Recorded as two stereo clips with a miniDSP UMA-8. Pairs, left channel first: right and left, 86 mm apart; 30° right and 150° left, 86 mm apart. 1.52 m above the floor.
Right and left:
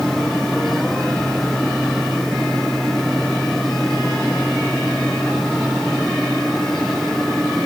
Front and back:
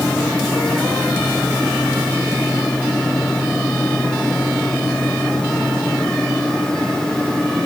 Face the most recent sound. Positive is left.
No sound to turn to.